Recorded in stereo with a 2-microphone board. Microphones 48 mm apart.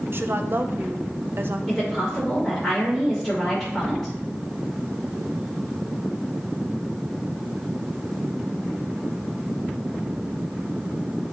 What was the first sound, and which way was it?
A woman speaking, 50° right (ahead or behind).